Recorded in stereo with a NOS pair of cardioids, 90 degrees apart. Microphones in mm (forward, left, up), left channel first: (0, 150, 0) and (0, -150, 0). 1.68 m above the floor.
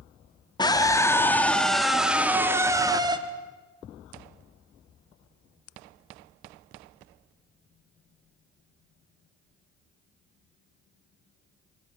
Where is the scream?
15° left, 3 m; by 3.2 s 15° right, 3 m.